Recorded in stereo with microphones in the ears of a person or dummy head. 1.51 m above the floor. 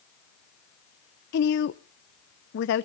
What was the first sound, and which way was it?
A woman speaking, 60° left (ahead or behind).